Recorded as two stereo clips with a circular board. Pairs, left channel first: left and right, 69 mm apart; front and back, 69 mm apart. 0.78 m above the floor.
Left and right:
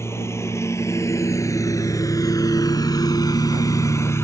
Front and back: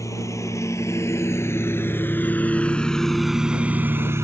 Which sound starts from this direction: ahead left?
A lawn mower, at 0.0 s.